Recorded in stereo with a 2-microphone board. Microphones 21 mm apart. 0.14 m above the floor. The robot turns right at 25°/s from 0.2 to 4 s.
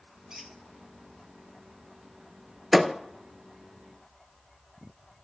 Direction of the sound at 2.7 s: 10° right (ahead or behind).